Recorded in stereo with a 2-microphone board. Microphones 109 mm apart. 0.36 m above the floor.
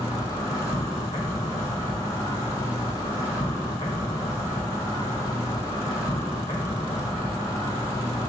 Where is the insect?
30° left (ahead or behind), 1.2 m.